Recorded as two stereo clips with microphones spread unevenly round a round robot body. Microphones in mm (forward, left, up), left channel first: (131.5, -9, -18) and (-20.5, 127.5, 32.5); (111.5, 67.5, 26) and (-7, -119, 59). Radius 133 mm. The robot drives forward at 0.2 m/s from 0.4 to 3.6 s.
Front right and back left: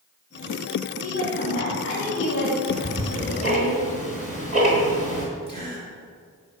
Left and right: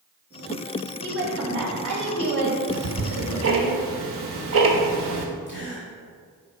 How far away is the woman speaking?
About 3 m.